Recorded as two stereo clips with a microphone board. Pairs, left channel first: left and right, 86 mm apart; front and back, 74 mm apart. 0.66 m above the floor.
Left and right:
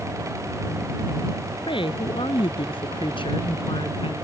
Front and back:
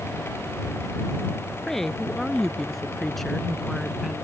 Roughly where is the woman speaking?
Left.